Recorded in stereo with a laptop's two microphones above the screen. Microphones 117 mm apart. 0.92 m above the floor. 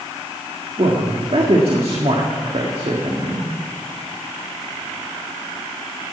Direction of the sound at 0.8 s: 55° right (ahead or behind).